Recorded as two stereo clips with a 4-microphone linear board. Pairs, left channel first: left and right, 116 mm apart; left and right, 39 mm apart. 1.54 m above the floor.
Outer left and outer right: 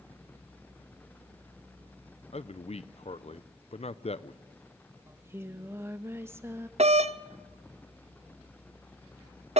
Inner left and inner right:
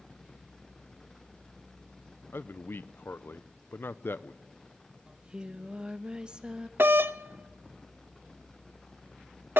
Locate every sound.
2.3 s a man speaking: 60° left (ahead or behind), 0.6 m
5.1 s singing: 20° right (ahead or behind), 0.9 m
6.8 s a doorbell: 65° right (ahead or behind), 0.7 m